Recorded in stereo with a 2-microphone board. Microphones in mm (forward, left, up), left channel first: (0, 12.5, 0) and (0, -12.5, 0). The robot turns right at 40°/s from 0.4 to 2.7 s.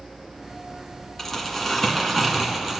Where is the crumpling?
15° left (ahead or behind), 1.6 m; by 2.8 s 10° right (ahead or behind), 1.6 m.